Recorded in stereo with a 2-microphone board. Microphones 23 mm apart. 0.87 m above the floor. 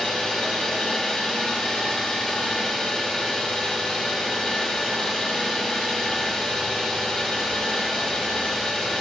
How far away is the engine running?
About 4.5 m.